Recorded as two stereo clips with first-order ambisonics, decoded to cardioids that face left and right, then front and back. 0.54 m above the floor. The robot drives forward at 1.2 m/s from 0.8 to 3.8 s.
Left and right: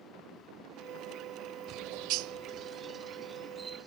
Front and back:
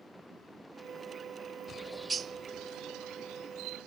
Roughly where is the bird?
Ahead right.